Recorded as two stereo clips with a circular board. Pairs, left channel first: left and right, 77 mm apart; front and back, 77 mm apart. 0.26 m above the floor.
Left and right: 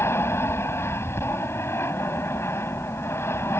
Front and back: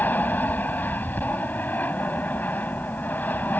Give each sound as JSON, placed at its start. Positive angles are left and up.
{"t": 0.0, "sound": "an aircraft", "azimuth_deg": 55}